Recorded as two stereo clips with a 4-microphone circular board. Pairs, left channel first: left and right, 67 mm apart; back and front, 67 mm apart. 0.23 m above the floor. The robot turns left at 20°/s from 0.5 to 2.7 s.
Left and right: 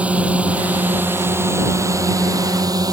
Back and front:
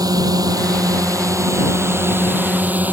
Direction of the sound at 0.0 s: 20° right.